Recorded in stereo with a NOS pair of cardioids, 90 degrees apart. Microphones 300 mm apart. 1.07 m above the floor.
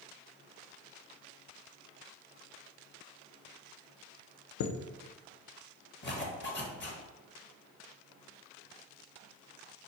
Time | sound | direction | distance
4.6 | a chime | 65° left | 0.5 m
6.0 | a zipper | 40° left | 1.0 m